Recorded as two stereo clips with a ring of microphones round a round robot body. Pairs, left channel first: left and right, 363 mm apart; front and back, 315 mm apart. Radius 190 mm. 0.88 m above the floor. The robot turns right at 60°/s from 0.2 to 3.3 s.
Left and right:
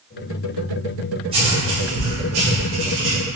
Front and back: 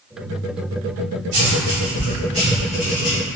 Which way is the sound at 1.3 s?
165° right.